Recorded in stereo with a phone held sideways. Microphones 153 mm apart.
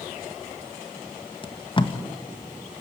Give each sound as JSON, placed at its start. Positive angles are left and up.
{"t": 1.4, "sound": "tape being pulled", "side_deg": 35, "distance_m": 1.5}